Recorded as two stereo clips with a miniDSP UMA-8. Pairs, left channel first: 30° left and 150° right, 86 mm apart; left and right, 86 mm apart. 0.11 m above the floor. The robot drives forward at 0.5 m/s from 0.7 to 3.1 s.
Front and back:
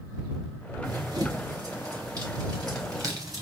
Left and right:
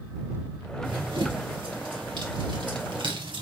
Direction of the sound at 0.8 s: 105° right.